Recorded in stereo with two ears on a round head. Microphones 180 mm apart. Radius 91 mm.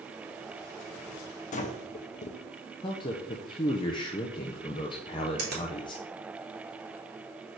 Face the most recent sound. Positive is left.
turn(degrees=-50)  # may be behind; listen again after turning